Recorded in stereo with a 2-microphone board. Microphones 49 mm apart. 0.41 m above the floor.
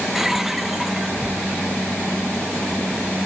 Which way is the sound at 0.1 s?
5° right (ahead or behind).